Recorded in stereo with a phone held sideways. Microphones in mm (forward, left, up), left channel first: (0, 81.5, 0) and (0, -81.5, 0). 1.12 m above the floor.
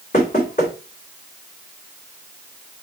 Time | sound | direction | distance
0.1 | knocking | 45° left (ahead or behind) | 3 m